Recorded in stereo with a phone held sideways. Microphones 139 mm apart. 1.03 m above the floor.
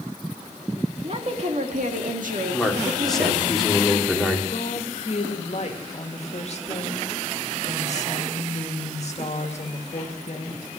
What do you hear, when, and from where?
1.0 s a woman speaking: 45° right (ahead or behind), 2 m; by 3.5 s 70° right (ahead or behind), 2.5 m
2.5 s a man speaking: centre (ahead or behind), 2.5 m
4.5 s a woman speaking: 50° left (ahead or behind), 2.0 m